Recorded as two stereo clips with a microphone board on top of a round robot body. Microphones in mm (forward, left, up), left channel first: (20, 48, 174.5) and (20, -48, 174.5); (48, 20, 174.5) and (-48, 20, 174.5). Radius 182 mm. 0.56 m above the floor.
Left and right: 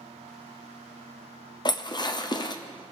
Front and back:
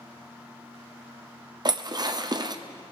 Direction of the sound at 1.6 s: 135° left.